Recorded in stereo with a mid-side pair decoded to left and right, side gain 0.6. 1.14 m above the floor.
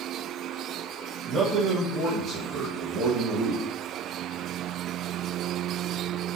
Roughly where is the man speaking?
Ahead right.